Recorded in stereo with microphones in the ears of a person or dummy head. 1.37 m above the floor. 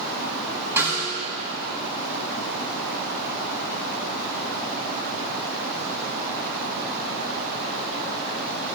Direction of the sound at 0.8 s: 15° right (ahead or behind).